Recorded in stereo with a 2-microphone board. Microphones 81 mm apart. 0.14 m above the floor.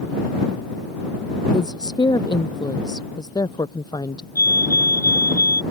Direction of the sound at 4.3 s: 50° right (ahead or behind).